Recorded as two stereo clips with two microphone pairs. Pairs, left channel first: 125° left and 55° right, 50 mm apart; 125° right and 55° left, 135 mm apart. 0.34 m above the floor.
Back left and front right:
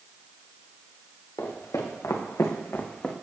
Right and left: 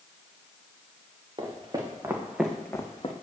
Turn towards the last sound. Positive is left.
turn(degrees=-160)